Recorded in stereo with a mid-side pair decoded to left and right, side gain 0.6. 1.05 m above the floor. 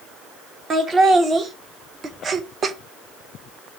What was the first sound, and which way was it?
Laughter, 35° right.